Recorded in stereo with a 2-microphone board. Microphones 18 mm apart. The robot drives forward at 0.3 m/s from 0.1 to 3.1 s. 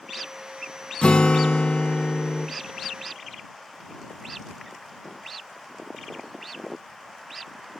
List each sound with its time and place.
1.0 s a guitar: 70° left (ahead or behind), 1.4 m; by 2.5 s 85° left, 1.3 m